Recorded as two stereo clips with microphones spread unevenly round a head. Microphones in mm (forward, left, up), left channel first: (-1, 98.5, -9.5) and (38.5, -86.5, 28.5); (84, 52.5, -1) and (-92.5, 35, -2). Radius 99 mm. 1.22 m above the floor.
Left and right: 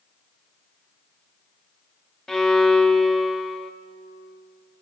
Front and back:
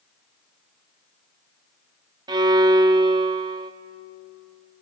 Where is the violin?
145° right, 0.7 m.